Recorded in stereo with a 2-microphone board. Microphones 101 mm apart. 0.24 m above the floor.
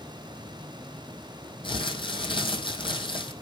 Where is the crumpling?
55° left (ahead or behind), 1.9 m.